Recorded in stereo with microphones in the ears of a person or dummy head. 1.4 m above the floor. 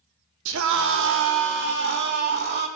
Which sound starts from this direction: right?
A scream, at 0.5 s.